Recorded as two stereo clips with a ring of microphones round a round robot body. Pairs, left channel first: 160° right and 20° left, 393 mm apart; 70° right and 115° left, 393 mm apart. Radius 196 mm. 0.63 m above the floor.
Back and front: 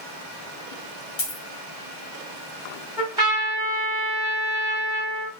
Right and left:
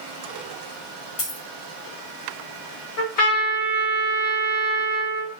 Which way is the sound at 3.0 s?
55° right.